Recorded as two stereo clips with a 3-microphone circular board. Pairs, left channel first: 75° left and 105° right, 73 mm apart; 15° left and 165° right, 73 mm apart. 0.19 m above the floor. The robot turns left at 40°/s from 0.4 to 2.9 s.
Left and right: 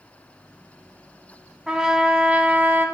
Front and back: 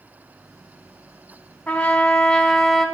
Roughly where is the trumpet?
Ahead right.